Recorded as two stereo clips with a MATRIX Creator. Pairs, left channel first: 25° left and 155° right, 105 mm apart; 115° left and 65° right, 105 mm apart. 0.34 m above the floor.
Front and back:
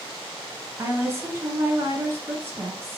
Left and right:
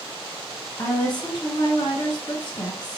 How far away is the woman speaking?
About 1.7 m.